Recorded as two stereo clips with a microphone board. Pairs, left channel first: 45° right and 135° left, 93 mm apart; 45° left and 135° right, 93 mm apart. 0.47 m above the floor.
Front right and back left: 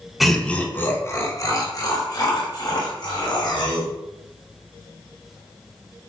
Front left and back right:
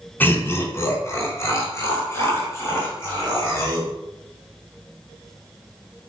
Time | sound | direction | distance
0.2 | laughter | 50° left | 0.7 m